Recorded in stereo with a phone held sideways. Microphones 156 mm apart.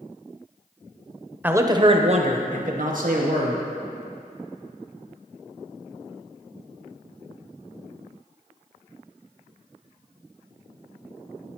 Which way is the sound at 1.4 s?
10° right (ahead or behind).